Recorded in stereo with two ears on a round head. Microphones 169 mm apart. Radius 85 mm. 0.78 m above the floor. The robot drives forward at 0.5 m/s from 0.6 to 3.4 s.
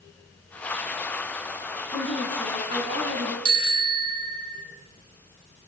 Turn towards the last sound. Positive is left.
turn(degrees=-60)  # may be behind; listen again after turning